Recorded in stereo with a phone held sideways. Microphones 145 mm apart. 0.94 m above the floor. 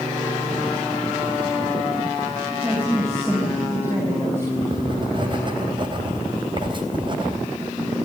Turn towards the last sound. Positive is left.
turn(degrees=-35)  # may be behind; listen again after turning